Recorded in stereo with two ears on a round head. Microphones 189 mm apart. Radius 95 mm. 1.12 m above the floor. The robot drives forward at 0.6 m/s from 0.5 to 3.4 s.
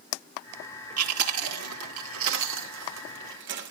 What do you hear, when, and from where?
1.0 s chewing: 85° right, 2 m; by 3.7 s 60° right (ahead or behind), 2.5 m